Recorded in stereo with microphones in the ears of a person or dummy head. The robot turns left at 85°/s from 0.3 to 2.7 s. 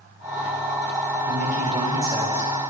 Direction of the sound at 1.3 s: 110° right.